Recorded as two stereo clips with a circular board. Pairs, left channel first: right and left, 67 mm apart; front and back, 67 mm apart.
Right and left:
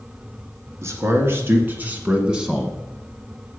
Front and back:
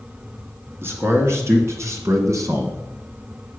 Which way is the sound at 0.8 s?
135° left.